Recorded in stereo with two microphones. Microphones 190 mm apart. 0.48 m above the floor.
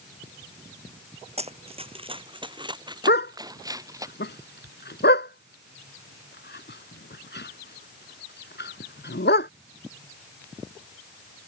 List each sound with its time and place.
1.4 s running footsteps: 35° right (ahead or behind); by 4.1 s 15° right (ahead or behind)
3.1 s a dog barking: 70° left (ahead or behind)